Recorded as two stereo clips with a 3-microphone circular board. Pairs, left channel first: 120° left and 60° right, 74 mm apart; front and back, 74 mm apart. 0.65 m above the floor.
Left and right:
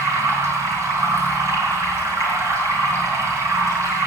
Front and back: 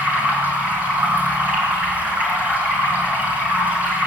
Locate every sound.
0.0 s running water: 110° right, 6.5 m